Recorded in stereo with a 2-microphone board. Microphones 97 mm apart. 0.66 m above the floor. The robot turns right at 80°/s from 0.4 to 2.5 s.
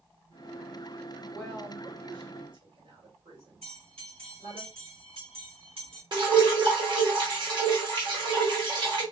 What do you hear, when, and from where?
1.3 s a woman speaking: 5° left (ahead or behind), 2.5 m; by 4.6 s 65° right (ahead or behind), 2.5 m
3.6 s a bell: 75° right (ahead or behind), 1.6 m
6.1 s dripping: 55° right (ahead or behind), 1.4 m